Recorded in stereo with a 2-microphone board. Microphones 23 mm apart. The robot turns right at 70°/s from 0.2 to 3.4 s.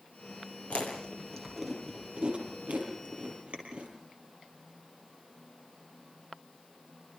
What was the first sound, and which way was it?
Chewing, 65° left (ahead or behind).